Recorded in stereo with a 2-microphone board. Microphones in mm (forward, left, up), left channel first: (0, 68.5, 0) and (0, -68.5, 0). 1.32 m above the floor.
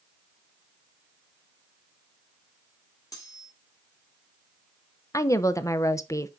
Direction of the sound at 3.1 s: 25° left (ahead or behind).